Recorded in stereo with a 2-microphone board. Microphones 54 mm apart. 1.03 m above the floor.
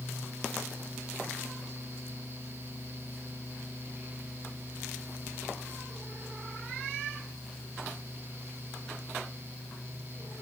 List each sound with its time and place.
Only background noise.